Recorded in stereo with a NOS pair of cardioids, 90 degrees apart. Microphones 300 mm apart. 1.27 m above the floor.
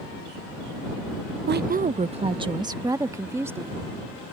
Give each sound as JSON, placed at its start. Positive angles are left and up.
{"t": 1.5, "sound": "a woman speaking", "azimuth_deg": -35}